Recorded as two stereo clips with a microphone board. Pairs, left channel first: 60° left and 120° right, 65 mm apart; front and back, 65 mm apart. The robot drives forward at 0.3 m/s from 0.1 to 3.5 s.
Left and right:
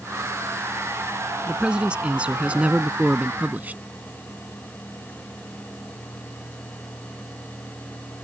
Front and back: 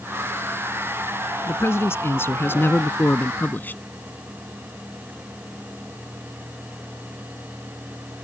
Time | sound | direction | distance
1.5 | a man speaking | 45° right | ?